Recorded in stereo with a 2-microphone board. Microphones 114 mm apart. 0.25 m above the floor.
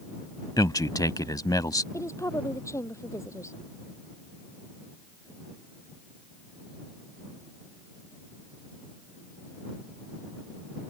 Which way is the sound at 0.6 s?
35° left (ahead or behind).